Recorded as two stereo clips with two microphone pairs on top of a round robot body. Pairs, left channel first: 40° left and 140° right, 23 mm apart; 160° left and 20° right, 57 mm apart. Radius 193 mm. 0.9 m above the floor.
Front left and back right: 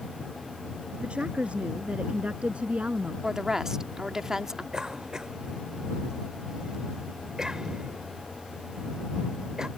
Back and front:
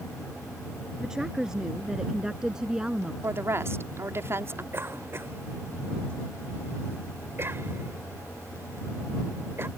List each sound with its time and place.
1.0 s a woman speaking: 100° right
3.2 s a woman speaking: 65° right
4.7 s a cough: 70° right